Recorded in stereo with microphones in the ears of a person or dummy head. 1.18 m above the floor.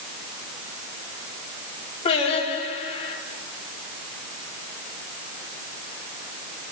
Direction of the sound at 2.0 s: 35° left (ahead or behind).